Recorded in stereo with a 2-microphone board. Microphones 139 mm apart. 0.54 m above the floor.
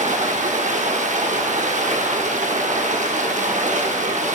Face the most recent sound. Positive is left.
turn(degrees=-60)  # may be behind; listen again after turning